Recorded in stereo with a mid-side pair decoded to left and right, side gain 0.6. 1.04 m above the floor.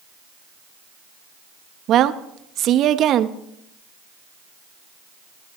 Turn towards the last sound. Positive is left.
turn(degrees=-55)